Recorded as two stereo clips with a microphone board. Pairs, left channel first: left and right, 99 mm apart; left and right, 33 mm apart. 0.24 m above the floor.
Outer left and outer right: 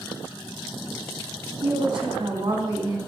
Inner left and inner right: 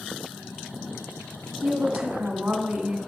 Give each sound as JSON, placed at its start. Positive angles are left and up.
{"t": 1.6, "sound": "a woman speaking", "side_deg": -55, "distance_m": 2.5}